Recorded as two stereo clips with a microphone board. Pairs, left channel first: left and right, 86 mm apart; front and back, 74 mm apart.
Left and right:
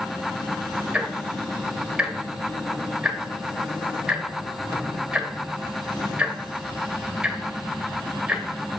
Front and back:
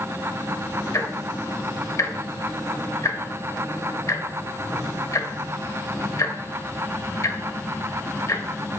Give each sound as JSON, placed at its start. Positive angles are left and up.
{"t": 0.9, "sound": "ticking", "azimuth_deg": -15, "distance_m": 0.9}